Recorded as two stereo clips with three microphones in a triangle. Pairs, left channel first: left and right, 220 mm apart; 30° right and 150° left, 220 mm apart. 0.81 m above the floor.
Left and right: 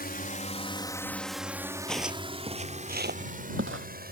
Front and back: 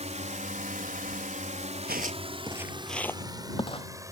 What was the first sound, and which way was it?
A drone, 105° left.